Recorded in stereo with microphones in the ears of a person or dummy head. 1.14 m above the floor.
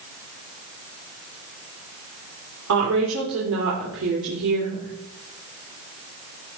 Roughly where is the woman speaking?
Right.